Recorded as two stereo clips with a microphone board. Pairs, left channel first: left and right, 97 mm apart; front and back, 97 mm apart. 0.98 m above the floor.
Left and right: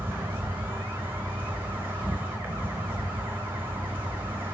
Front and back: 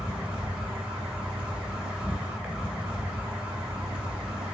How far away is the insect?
About 0.8 m.